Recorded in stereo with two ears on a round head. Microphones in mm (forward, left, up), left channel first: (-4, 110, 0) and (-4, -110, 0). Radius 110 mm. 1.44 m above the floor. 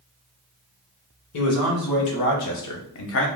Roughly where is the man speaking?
Left.